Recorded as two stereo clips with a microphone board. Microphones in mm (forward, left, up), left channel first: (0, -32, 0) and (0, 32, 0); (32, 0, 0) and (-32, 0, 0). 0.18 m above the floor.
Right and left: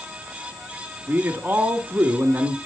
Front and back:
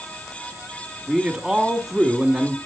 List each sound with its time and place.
1.1 s a man speaking: 100° left, 1.5 m